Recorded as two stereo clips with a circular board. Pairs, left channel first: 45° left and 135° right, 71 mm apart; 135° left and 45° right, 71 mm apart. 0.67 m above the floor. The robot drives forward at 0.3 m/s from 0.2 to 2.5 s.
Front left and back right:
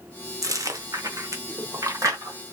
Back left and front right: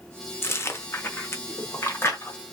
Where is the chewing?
170° right, 0.9 m; by 2.5 s 175° right, 1.5 m.